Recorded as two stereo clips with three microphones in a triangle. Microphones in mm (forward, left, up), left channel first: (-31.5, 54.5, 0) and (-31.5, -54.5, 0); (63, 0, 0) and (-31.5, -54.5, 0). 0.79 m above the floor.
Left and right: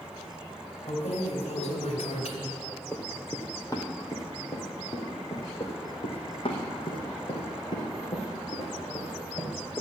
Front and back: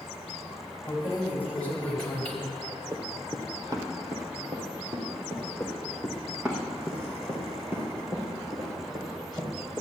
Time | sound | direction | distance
0.9 | keys jangling | 100° left | 3.5 m
2.9 | running footsteps | 155° left | 1.3 m
5.6 | running footsteps | 115° left | 2.5 m